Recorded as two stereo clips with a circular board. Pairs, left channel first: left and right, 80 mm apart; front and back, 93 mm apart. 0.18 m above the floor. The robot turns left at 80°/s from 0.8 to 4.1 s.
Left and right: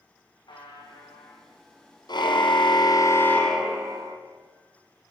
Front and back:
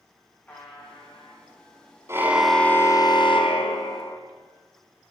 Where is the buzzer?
70° left, 8.5 m; by 1.4 s 20° left, 8.5 m.